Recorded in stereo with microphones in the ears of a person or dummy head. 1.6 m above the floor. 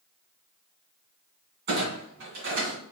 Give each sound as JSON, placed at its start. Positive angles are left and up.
{"t": 1.7, "sound": "a clunk", "side_deg": -60, "distance_m": 2.5}